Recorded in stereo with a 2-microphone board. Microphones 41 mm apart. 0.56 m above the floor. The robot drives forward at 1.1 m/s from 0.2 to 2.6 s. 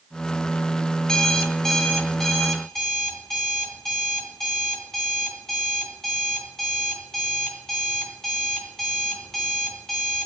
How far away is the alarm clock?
About 1.1 m.